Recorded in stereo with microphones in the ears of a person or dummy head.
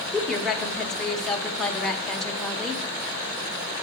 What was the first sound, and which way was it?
A woman speaking, 5° left (ahead or behind).